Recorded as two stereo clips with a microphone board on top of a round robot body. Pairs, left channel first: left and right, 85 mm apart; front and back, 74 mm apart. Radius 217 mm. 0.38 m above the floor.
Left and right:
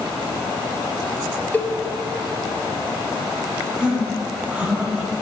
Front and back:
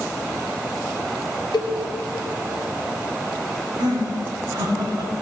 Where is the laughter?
165° right, 2.5 m.